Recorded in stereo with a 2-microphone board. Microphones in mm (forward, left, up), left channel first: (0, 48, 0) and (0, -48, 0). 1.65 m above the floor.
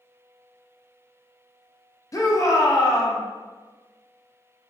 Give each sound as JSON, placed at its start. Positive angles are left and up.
{"t": 2.1, "sound": "a shout", "side_deg": 35, "distance_m": 0.5}